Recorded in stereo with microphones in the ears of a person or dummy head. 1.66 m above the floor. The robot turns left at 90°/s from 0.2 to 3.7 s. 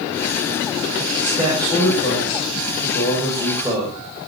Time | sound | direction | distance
1.2 | a man speaking | 145° right | 9 m